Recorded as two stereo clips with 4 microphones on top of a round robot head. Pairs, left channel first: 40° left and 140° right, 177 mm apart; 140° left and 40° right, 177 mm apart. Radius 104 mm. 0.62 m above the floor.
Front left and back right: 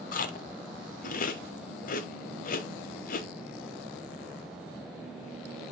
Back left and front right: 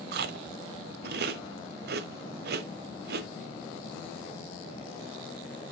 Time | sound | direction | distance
0.1 | chewing | 5° right | 0.9 m